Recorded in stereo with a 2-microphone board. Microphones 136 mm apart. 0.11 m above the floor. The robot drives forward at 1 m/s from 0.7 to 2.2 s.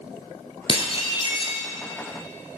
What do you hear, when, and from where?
0.7 s dishes clattering: 40° left (ahead or behind), 1.2 m; by 1.6 s 35° left (ahead or behind), 1.3 m